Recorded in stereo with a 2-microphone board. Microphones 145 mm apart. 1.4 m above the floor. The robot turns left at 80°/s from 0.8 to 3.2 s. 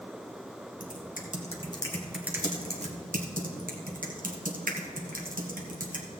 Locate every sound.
0.8 s typing on a keyboard: 65° left (ahead or behind), 1.3 m; by 6.1 s 70° right (ahead or behind), 1.3 m